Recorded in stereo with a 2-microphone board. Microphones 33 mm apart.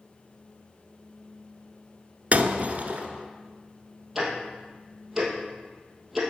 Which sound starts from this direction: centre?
Ticking, at 4.2 s.